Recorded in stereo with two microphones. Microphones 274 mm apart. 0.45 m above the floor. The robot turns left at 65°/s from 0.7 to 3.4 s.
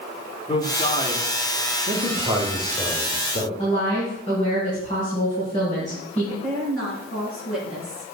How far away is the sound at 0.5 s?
About 1.4 m.